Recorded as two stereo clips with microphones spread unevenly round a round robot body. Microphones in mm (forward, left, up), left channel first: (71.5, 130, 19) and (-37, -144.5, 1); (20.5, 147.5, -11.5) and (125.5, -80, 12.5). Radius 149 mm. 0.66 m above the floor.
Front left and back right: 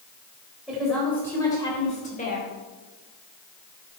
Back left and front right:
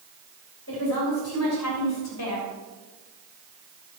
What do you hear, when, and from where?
0.7 s a woman speaking: 160° left, 3.5 m; by 2.5 s 130° left, 3 m